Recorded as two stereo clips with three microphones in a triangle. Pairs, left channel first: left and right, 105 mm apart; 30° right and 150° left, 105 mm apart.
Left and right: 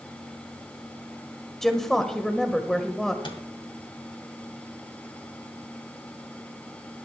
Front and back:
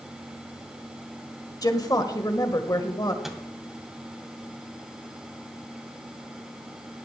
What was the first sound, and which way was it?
A woman speaking, 5° left.